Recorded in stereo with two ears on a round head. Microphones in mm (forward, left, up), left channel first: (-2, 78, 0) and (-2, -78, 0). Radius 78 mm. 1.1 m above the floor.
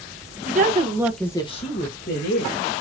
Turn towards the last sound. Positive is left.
turn(degrees=65)  # may be behind; listen again after turning